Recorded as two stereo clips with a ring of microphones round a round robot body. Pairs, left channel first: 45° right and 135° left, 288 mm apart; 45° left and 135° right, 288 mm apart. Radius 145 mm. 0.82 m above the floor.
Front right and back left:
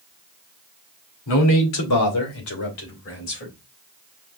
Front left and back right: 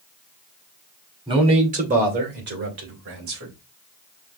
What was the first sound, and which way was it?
A man speaking, 60° right.